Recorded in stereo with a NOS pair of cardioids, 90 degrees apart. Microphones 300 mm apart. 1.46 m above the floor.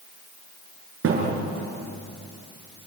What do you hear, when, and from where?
1.0 s a thud: 50° right, 7 m